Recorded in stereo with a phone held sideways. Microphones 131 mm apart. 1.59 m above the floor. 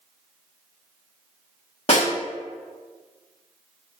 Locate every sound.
1.9 s a snare drum: 50° left (ahead or behind), 1.6 m